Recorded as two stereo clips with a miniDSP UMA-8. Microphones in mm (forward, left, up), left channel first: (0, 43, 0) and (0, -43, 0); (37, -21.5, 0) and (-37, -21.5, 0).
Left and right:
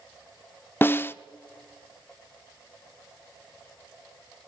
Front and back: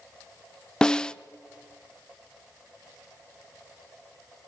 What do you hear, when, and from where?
0.8 s a snare drum: 65° left, 0.7 m